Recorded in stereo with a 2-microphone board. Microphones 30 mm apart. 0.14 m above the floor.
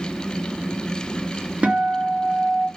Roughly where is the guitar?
Right.